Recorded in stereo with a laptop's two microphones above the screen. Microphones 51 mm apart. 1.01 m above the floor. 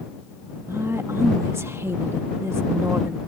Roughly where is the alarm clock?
No alarm clock in this recording.